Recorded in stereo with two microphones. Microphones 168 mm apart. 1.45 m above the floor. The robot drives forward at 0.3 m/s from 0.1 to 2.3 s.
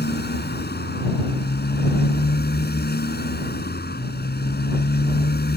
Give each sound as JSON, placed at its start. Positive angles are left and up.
{"t": 0.0, "sound": "a motorcycle", "side_deg": 80}